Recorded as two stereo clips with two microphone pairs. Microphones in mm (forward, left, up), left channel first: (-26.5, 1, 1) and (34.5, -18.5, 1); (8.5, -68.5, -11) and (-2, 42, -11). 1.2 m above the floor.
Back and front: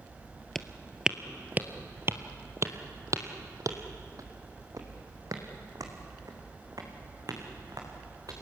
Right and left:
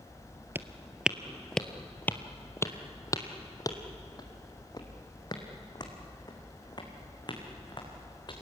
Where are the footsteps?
85° left, 1.2 m; by 8.3 s 40° right, 5.5 m.